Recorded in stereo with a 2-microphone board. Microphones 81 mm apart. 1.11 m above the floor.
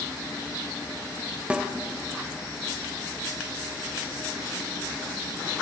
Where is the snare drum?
15° right (ahead or behind), 1.5 m.